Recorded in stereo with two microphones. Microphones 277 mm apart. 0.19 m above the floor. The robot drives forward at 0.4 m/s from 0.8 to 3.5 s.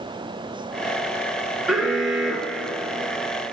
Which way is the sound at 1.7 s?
Centre (ahead or behind).